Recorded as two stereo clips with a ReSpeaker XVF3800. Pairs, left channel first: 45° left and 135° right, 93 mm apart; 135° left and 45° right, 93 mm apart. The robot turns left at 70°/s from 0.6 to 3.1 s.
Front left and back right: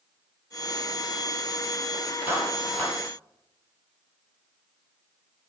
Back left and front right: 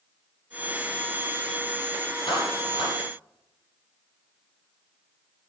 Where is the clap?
155° left, 4 m; by 3.0 s 105° left, 4 m.